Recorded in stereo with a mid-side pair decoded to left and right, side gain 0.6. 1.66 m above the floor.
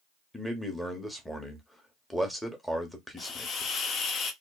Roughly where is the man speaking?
Ahead.